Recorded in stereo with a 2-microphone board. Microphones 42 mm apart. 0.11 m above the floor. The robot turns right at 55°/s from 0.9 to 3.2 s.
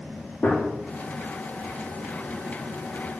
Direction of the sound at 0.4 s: 35° left (ahead or behind).